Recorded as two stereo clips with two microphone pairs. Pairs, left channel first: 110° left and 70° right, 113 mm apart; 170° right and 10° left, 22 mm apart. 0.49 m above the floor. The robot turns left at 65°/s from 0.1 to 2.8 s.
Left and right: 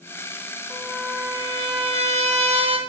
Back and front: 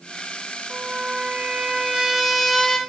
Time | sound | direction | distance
0.7 | a trumpet | 20° left | 0.8 m